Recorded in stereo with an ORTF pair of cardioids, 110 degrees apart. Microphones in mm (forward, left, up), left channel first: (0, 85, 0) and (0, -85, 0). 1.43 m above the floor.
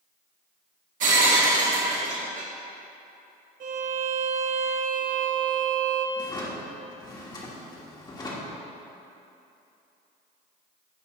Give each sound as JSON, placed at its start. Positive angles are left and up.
{"t": 1.0, "sound": "breaking glass", "azimuth_deg": -55, "distance_m": 1.8}
{"t": 3.6, "sound": "a violin", "azimuth_deg": -55, "distance_m": 0.9}
{"t": 6.2, "sound": "a drawer", "azimuth_deg": 25, "distance_m": 1.6}